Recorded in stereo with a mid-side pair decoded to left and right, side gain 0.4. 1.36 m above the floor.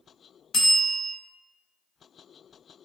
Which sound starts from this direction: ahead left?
A bell, at 0.5 s.